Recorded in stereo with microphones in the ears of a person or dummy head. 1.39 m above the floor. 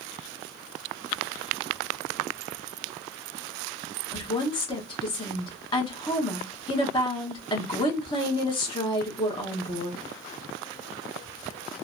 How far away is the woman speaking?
About 0.9 m.